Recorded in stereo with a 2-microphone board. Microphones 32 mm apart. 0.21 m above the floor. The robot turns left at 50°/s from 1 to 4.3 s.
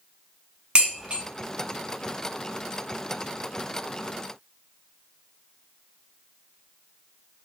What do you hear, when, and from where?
0.8 s dishes clattering: 30° right (ahead or behind), 1.5 m; by 1.2 s 40° right (ahead or behind), 1.5 m